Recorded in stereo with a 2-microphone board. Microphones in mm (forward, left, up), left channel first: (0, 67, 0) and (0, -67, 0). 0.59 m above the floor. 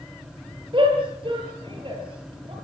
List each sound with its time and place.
0.7 s a shout: 40° right (ahead or behind), 10 m